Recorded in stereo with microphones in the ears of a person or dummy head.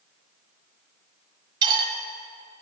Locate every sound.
1.6 s cutlery clinking: 25° right (ahead or behind), 1.4 m